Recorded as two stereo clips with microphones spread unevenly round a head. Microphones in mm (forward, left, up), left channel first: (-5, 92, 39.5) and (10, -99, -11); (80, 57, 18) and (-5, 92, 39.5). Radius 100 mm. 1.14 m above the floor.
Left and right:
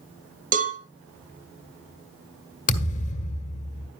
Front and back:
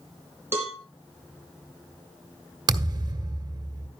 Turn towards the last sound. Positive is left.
turn(degrees=135)